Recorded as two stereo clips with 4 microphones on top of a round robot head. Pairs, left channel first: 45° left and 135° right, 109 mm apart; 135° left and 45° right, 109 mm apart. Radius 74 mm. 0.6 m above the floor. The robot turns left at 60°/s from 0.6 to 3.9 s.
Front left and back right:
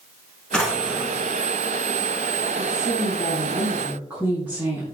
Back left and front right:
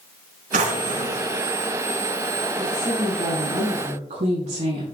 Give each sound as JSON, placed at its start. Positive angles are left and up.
{"t": 0.5, "sound": "a drawer", "azimuth_deg": -40, "distance_m": 2.5}
{"t": 2.6, "sound": "a woman speaking", "azimuth_deg": 10, "distance_m": 6.0}